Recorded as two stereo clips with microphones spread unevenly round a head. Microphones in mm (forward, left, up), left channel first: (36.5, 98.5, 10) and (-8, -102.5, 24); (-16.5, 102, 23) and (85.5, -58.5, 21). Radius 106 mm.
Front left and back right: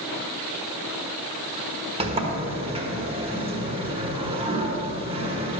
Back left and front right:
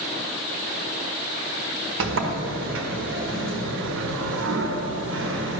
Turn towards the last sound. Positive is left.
turn(degrees=-40)